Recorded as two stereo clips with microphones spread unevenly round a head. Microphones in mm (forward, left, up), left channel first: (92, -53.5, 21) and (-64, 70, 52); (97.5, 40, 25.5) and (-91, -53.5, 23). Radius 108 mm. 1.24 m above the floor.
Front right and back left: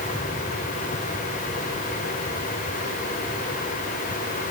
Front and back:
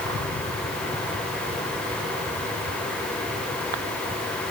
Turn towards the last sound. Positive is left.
No sound to turn to.